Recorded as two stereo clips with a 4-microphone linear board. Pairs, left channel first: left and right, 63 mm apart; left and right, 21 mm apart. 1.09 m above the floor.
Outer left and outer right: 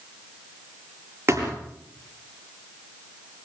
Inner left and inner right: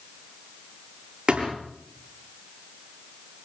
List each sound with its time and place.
1.3 s a thud: 40° right (ahead or behind), 7 m